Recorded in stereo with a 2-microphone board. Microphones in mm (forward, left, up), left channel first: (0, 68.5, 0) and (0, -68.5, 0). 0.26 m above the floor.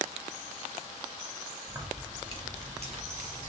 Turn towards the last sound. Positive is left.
turn(degrees=-60)  # may be behind; listen again after turning